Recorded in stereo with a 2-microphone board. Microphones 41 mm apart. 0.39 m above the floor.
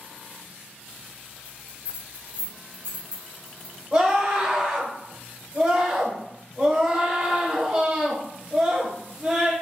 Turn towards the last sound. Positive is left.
turn(degrees=-20)  # may be behind; listen again after turning